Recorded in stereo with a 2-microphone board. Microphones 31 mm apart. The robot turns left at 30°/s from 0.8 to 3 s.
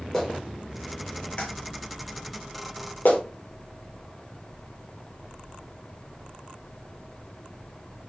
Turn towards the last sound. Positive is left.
turn(degrees=70)  # may be behind; listen again after turning